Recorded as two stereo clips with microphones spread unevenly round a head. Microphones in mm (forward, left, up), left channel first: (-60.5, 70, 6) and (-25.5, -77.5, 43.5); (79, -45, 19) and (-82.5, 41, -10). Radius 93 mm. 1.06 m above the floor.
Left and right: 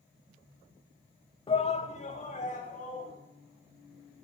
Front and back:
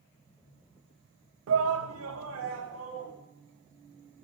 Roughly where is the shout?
Behind.